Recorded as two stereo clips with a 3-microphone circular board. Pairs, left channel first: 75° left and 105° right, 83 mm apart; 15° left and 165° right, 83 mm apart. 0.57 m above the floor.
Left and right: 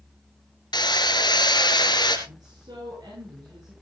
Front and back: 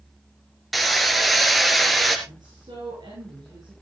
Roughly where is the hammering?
Left.